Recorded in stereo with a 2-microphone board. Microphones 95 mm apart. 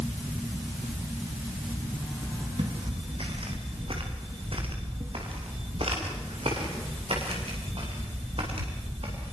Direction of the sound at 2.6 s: 70° right (ahead or behind).